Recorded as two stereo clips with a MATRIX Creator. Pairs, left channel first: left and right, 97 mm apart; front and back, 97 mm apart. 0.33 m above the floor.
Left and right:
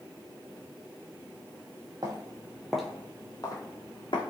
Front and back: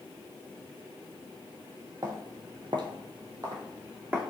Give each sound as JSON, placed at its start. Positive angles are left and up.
{"t": 2.0, "sound": "footsteps", "azimuth_deg": -130, "distance_m": 0.7}